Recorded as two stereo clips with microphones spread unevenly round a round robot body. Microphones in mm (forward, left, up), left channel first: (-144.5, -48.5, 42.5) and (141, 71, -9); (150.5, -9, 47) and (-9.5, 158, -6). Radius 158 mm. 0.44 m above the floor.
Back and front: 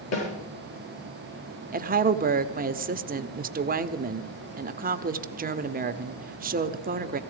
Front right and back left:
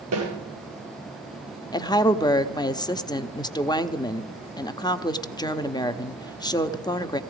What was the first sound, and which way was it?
A snare drum, 160° left.